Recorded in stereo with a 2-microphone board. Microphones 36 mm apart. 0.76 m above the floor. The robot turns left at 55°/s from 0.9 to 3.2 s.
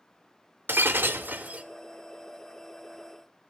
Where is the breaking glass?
100° right, 0.8 m; by 1.6 s 140° right, 0.8 m.